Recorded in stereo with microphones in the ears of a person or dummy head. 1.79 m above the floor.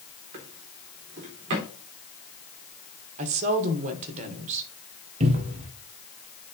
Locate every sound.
0.3 s a drawer: 25° right (ahead or behind), 1.0 m
3.2 s a woman speaking: 40° right (ahead or behind), 1.5 m
5.2 s a cupboard door: 35° right (ahead or behind), 1.2 m